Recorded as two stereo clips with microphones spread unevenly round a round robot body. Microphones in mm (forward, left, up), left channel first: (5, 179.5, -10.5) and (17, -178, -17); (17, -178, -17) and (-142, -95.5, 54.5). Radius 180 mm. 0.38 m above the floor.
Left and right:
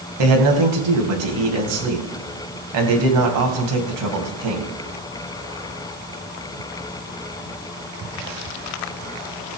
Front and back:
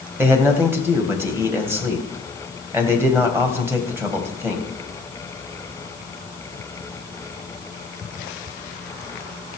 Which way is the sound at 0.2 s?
120° right.